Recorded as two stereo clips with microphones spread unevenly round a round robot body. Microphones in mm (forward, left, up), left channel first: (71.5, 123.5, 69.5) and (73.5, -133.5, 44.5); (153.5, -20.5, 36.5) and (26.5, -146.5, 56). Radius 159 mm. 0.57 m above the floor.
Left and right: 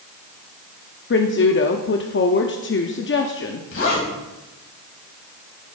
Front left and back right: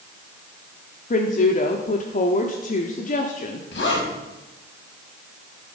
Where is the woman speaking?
55° left, 1.0 m.